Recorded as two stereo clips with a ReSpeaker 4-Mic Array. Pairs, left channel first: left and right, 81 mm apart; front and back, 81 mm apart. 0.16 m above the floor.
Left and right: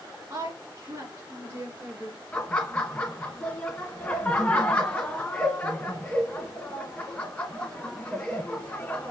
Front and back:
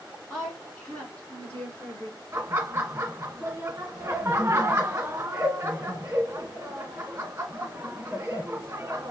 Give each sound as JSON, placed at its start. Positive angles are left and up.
{"t": 0.3, "sound": "a woman speaking", "azimuth_deg": -85, "distance_m": 1.8}
{"t": 2.3, "sound": "laughter", "azimuth_deg": 150, "distance_m": 1.3}